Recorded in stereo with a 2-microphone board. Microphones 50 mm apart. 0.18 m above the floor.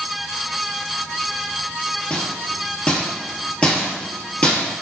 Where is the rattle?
25° left (ahead or behind), 0.9 m.